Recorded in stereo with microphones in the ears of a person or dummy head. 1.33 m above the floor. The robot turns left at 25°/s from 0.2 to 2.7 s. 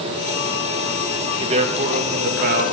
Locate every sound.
1.4 s a man speaking: 30° right, 2 m; by 2.7 s 65° right, 2 m